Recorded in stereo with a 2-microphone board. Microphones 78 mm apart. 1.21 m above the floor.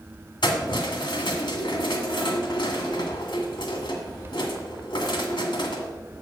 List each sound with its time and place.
0.4 s keys jangling: 75° left (ahead or behind), 1.7 m